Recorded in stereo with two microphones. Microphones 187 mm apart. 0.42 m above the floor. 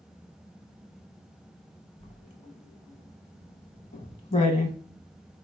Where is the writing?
40° left (ahead or behind), 0.6 m.